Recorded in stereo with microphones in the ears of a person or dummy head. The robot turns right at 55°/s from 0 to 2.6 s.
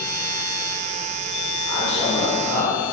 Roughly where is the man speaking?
Ahead.